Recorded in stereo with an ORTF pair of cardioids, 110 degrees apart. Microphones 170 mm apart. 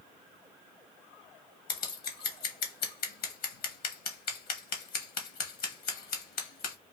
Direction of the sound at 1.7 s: 65° left.